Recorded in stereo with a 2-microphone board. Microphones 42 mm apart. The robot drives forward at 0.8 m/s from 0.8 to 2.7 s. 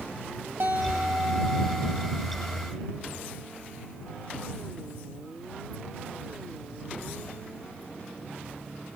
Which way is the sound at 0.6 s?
65° right (ahead or behind).